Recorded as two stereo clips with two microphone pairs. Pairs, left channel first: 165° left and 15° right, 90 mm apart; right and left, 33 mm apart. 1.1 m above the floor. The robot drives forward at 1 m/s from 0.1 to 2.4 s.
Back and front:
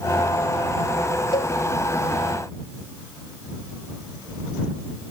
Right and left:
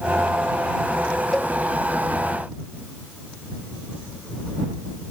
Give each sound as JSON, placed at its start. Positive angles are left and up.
{"t": 1.3, "sound": "a cowbell", "azimuth_deg": -170}